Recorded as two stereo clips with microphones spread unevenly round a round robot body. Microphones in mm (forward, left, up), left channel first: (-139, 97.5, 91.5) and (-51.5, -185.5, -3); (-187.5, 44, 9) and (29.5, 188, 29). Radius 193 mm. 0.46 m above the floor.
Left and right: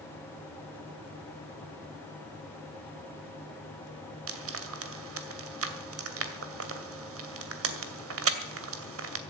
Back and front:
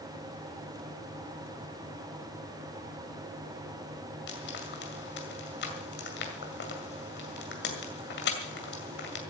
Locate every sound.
4.3 s frying: 95° right, 2 m